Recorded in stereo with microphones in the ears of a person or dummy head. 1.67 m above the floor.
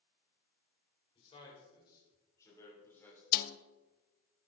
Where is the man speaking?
30° left (ahead or behind), 6.5 m; by 3.2 s 10° left (ahead or behind), 5.5 m.